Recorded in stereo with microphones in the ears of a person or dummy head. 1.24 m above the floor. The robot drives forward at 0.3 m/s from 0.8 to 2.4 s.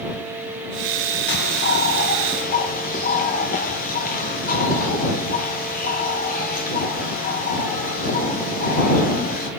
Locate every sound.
1.3 s a bird: 55° left (ahead or behind), 1.3 m; by 9.5 s 45° left (ahead or behind), 1.5 m